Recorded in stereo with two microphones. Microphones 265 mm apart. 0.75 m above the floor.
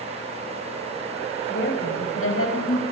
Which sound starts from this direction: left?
A woman speaking, at 1.5 s.